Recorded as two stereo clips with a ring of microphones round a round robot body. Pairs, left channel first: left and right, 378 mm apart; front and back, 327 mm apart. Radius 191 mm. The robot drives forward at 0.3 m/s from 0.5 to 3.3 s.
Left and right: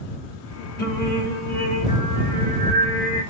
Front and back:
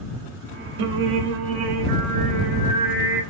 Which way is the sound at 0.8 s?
155° left.